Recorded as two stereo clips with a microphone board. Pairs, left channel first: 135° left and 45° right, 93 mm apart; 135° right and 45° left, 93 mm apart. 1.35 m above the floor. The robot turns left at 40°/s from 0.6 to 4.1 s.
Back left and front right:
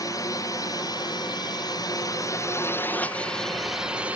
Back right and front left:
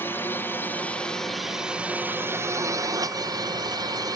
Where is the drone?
165° left; by 4.2 s 25° left.